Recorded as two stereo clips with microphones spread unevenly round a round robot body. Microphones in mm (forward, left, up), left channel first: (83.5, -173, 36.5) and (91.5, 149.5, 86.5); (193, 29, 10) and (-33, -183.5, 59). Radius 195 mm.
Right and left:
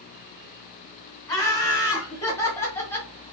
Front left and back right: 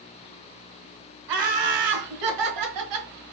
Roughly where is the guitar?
I don't hear a guitar.